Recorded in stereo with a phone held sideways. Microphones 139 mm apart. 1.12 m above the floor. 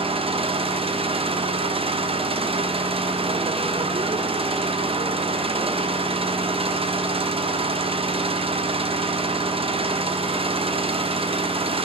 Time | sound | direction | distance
0.0 | an engine running | 40° right (ahead or behind) | 0.7 m